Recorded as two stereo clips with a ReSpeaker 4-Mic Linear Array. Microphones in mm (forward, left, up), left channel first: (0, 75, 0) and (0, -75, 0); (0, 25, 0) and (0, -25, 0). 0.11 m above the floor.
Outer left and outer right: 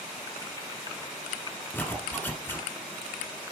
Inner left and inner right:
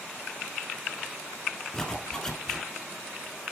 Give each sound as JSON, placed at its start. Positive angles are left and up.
{"t": 1.7, "sound": "a zipper", "side_deg": 15, "distance_m": 1.2}